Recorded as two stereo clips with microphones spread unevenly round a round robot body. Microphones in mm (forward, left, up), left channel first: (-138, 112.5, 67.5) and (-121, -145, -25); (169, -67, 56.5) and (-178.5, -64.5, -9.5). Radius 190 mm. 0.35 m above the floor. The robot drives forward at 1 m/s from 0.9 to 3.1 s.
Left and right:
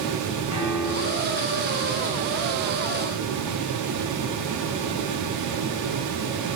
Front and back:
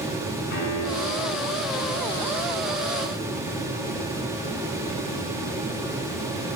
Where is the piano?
50° right, 7.5 m; by 1.4 s 55° right, 7 m.